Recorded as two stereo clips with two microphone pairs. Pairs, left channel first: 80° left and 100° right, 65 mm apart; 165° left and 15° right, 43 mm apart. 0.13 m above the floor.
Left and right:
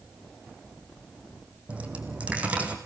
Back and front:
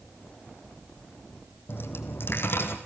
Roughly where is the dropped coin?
Behind.